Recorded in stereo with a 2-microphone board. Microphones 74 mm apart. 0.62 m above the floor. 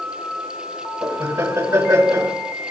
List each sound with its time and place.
1.0 s laughter: 40° right (ahead or behind), 3 m